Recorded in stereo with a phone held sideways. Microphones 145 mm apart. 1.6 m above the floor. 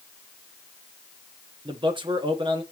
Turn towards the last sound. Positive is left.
turn(degrees=-35)  # may be behind; listen again after turning